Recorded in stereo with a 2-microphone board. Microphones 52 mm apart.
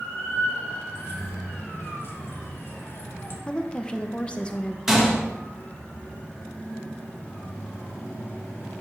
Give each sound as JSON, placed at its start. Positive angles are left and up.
{"t": 0.9, "sound": "keys jangling", "side_deg": 50, "distance_m": 1.3}
{"t": 3.5, "sound": "a woman speaking", "side_deg": 20, "distance_m": 0.7}
{"t": 4.9, "sound": "a gunshot", "side_deg": -10, "distance_m": 1.3}